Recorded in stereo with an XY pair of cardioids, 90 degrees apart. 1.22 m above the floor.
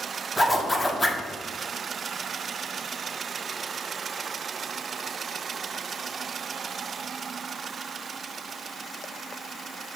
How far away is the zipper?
About 0.9 m.